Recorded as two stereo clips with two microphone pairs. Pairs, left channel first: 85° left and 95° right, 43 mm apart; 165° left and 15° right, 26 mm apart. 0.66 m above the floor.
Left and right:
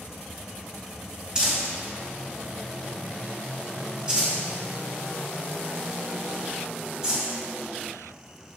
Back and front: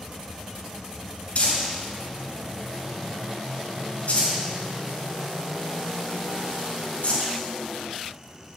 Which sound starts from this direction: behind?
Crumpling, at 1.4 s.